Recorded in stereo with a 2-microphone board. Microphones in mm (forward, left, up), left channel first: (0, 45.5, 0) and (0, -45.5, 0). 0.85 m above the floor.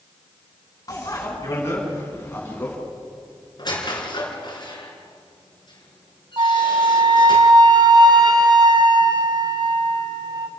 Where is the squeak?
50° left (ahead or behind), 4 m.